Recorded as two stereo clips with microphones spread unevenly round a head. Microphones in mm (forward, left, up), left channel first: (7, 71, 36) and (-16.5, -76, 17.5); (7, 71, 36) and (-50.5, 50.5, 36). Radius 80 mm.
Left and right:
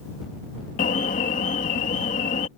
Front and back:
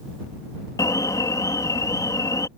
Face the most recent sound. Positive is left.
turn(degrees=45)